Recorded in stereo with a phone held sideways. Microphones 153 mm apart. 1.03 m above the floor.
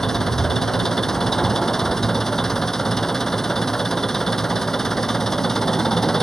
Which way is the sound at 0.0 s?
Centre (ahead or behind).